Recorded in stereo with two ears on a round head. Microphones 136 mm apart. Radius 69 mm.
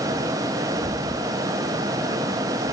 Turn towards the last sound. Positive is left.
turn(degrees=-65)  # may be behind; listen again after turning